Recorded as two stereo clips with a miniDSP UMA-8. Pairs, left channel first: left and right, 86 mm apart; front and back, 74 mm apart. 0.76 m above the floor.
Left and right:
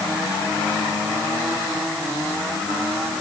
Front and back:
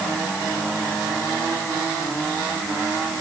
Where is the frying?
I don't hear frying.